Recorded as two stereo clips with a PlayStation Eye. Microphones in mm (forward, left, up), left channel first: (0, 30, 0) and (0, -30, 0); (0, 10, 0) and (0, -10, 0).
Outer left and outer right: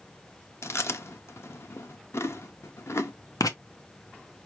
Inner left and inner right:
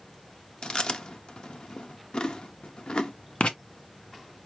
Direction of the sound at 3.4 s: 75° left (ahead or behind).